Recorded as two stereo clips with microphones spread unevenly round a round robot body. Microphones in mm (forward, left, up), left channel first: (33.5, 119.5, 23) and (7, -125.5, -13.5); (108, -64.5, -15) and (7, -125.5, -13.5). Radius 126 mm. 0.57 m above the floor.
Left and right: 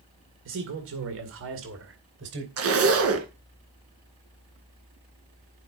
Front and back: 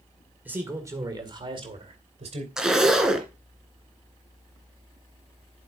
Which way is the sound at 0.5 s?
75° right.